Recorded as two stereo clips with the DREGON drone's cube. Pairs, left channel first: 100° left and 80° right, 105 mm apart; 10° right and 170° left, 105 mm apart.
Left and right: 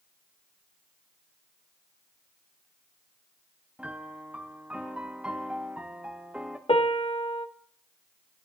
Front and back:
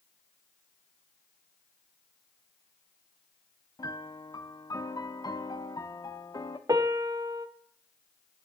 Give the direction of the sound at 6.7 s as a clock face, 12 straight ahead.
8 o'clock.